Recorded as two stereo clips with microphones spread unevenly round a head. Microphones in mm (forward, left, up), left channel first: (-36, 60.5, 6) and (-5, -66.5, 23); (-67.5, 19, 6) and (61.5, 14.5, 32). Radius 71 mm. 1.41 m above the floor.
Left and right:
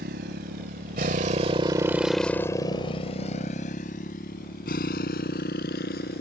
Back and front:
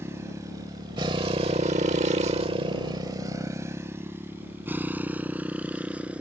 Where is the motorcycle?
70° right; by 6.2 s 75° left.